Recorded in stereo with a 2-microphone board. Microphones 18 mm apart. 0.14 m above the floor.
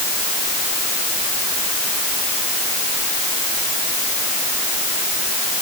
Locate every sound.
Only background noise.